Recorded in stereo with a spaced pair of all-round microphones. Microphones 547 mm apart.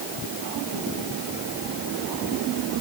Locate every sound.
Only background noise.